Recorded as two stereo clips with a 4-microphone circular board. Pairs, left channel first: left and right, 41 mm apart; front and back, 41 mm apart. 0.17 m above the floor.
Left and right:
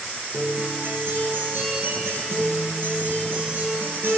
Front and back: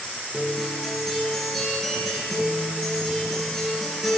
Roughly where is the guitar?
Right.